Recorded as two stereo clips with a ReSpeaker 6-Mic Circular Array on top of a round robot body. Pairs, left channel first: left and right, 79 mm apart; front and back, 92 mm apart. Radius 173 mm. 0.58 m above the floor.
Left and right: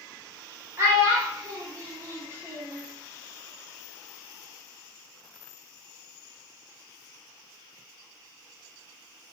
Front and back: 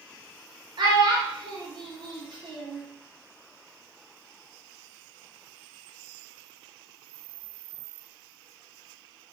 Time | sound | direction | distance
0.8 | a child speaking | 145° right | 1.1 m